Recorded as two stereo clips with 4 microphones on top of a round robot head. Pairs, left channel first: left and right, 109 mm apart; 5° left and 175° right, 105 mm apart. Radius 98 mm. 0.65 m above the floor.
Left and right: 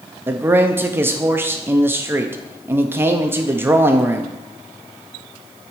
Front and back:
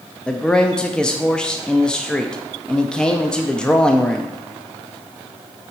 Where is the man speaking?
65° right, 0.5 m.